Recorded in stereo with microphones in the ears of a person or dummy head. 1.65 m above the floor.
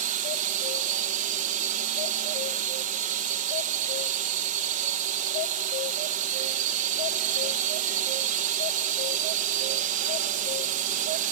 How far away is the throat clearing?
No throat clearing in this recording.